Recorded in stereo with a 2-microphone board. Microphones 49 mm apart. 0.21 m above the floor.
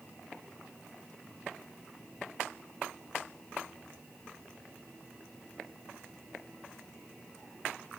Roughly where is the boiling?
I don't hear boiling.